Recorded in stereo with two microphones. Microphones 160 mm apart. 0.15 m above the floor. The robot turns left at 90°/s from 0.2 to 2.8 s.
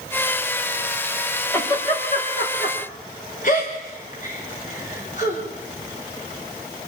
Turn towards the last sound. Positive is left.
turn(degrees=55)  # may be behind; listen again after turning